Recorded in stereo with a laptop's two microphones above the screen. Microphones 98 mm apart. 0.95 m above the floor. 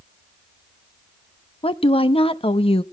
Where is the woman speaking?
70° left (ahead or behind), 0.9 m.